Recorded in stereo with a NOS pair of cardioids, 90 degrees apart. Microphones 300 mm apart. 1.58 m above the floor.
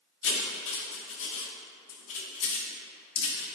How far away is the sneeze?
No sneeze in this recording.